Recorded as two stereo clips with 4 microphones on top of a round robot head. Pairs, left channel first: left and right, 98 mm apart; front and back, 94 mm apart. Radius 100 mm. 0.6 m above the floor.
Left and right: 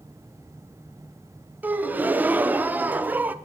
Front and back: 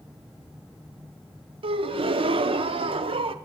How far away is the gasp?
About 0.5 m.